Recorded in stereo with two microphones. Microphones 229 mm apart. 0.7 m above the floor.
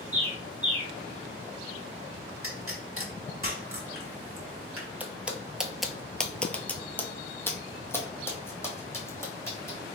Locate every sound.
0.1 s a bird: 30° right (ahead or behind), 1.4 m
2.4 s a pop: 70° right (ahead or behind), 1.1 m
5.0 s footsteps: 5° right (ahead or behind), 0.8 m; by 9.8 s 10° left (ahead or behind), 2 m